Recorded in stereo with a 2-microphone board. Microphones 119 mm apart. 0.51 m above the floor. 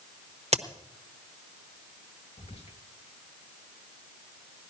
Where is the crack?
65° right (ahead or behind), 1.0 m.